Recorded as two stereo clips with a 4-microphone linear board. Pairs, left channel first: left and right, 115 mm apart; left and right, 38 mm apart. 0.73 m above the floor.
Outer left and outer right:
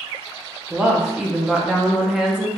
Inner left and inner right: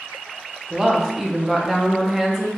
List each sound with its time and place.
0.7 s a woman speaking: 5° right (ahead or behind), 0.8 m